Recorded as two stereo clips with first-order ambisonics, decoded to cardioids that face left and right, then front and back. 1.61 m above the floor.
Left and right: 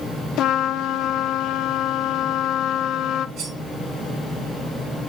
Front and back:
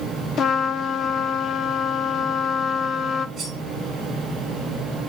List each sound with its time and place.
0.4 s a trumpet: 50° left, 0.8 m
3.4 s cutlery clinking: 105° right, 5.5 m